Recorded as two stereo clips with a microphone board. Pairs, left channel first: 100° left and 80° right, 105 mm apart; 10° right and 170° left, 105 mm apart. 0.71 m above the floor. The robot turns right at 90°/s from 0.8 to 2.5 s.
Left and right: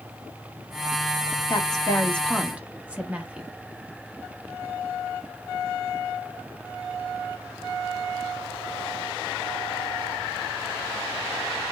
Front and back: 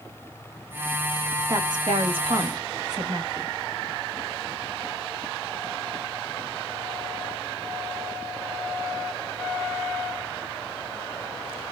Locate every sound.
1.5 s a woman speaking: 115° left, 0.8 m; by 3.5 s 150° right, 0.8 m